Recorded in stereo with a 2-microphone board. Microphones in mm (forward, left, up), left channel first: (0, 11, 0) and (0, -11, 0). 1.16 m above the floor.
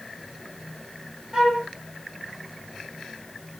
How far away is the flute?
About 1.3 m.